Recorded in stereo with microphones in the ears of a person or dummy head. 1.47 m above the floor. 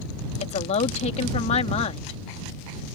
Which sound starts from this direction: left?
A woman speaking, at 0.4 s.